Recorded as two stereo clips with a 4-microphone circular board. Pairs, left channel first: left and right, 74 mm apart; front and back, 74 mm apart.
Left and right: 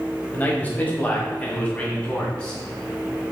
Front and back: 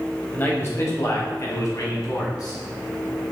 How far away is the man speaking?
About 1.1 m.